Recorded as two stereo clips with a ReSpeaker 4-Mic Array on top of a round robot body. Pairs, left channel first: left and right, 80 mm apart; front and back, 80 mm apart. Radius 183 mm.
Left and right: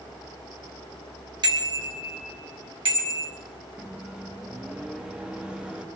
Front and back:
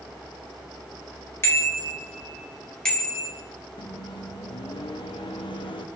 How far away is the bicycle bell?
About 3 m.